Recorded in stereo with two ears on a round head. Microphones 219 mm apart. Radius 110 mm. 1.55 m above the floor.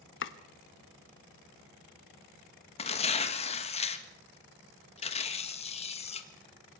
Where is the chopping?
50° left (ahead or behind), 1.1 m.